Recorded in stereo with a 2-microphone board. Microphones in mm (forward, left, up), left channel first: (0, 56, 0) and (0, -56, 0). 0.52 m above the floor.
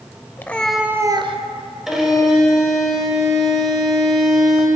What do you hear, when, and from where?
0.4 s a cat meowing: 20° left (ahead or behind), 0.8 m; by 1.4 s 60° right (ahead or behind), 0.6 m
1.9 s a violin: 5° right (ahead or behind), 1.7 m